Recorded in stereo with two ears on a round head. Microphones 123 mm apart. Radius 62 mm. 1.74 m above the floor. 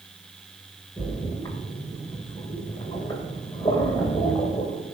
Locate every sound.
1.0 s a splash: 25° left (ahead or behind), 2 m